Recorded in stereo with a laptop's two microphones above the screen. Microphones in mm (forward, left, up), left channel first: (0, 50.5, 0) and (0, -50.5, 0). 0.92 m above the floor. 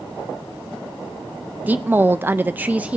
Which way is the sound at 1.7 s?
15° right (ahead or behind).